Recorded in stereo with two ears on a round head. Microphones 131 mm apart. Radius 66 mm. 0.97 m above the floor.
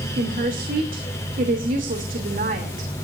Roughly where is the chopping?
No chopping in this recording.